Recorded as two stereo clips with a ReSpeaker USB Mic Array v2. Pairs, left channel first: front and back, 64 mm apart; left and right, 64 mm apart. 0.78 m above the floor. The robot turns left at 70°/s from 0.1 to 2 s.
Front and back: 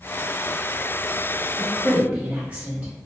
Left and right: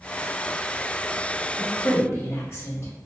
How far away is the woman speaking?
About 0.8 m.